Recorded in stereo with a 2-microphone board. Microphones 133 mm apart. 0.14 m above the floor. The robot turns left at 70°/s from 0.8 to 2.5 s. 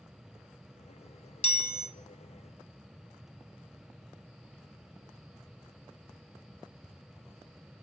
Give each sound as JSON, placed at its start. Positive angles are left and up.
{"t": 1.4, "sound": "a chime", "azimuth_deg": 110, "distance_m": 0.7}